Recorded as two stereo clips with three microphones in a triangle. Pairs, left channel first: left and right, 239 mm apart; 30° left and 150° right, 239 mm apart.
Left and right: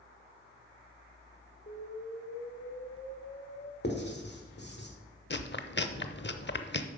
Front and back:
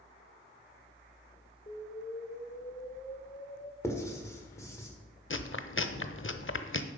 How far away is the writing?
About 1.7 m.